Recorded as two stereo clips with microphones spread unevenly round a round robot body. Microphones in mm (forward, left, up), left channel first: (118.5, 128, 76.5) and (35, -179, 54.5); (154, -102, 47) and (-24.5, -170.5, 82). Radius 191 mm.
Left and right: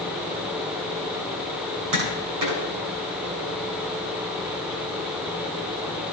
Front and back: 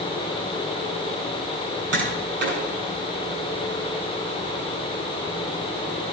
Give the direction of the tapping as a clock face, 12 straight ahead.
4 o'clock.